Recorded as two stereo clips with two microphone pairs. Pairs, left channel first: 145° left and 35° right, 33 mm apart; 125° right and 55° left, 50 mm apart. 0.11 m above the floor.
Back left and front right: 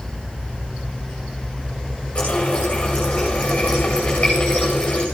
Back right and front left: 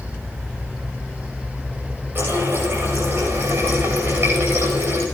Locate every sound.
2.1 s a running tap: 90° left, 7.5 m